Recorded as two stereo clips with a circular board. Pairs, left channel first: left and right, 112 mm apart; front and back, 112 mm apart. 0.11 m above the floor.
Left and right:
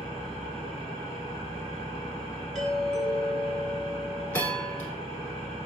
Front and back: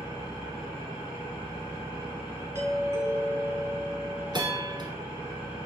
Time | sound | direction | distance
0.0 | an engine running | 105° right | 2.5 m
2.5 | a doorbell | 170° left | 1.6 m
4.3 | a bell | 160° left | 1.0 m